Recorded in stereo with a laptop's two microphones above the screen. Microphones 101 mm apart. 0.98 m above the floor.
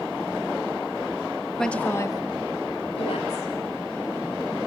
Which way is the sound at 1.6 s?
5° left (ahead or behind).